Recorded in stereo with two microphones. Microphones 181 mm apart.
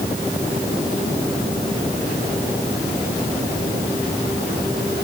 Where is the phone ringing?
I don't hear a phone ringing.